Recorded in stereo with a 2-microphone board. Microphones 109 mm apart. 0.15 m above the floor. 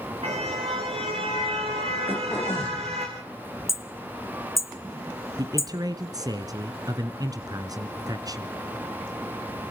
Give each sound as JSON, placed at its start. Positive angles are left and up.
{"t": 0.2, "sound": "a car horn", "side_deg": -65, "distance_m": 7.5}
{"t": 2.1, "sound": "throat clearing", "side_deg": 20, "distance_m": 6.0}
{"t": 3.7, "sound": "hammering", "side_deg": 25, "distance_m": 0.9}
{"t": 5.4, "sound": "a man speaking", "side_deg": -35, "distance_m": 1.8}